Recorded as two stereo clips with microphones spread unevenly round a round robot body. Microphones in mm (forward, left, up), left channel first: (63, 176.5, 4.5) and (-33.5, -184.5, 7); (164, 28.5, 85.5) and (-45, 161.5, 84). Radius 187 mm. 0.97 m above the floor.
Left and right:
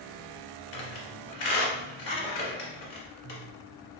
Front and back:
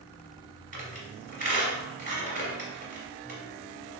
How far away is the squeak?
About 1.6 m.